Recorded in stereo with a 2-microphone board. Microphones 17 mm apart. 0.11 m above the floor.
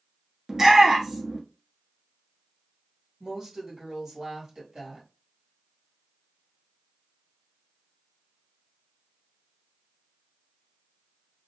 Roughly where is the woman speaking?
Right.